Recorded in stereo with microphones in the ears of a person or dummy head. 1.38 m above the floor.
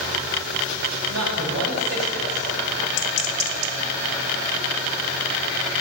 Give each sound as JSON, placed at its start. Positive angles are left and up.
{"t": 1.1, "sound": "a man speaking", "side_deg": -70, "distance_m": 6.5}